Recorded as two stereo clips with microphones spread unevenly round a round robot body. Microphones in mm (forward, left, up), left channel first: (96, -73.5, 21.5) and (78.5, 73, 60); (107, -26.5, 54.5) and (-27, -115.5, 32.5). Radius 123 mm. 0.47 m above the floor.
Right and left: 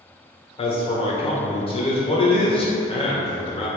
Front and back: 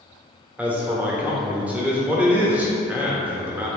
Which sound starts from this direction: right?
A man speaking, at 0.6 s.